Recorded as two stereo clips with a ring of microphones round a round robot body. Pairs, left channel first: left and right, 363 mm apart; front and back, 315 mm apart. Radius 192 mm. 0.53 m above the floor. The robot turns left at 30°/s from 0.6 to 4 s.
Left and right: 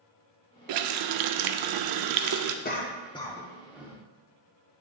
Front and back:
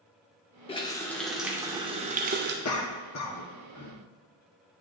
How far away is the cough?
About 1.1 m.